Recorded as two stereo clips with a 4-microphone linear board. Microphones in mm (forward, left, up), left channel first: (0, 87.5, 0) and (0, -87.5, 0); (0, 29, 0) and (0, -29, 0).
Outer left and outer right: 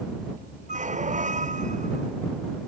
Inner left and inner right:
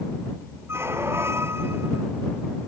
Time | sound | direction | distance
0.7 | a squeak | 45° right (ahead or behind) | ?